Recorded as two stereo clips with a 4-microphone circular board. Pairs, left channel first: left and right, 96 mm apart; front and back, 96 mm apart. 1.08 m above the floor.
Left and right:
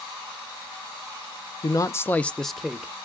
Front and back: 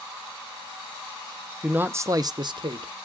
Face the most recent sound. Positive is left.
turn(degrees=-170)